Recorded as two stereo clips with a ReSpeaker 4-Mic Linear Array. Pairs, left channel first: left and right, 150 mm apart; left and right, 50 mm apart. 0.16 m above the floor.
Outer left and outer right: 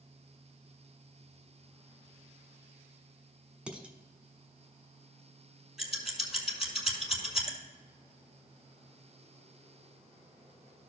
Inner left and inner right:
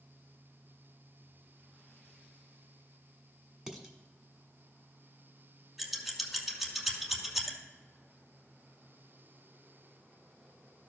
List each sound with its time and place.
3.7 s dishes clattering: 5° right (ahead or behind), 1.1 m
5.8 s scissors: 5° right (ahead or behind), 1.6 m